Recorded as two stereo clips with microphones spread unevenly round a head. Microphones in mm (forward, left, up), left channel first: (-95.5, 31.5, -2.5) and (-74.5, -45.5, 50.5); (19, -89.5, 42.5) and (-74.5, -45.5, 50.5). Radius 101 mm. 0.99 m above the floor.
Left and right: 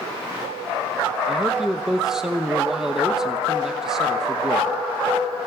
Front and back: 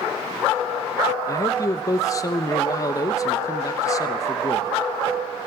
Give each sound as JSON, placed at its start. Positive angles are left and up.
{"t": 1.3, "sound": "a man speaking", "azimuth_deg": 30, "distance_m": 0.9}